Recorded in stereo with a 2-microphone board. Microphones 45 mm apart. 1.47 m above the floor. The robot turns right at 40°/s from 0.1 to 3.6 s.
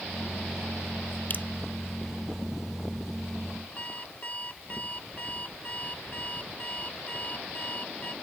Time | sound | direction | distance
1.3 | dripping | 45° left (ahead or behind) | ?
3.8 | an alarm clock | 35° left (ahead or behind) | ?